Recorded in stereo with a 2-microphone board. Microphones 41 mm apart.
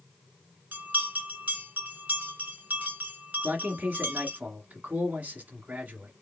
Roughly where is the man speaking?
Right.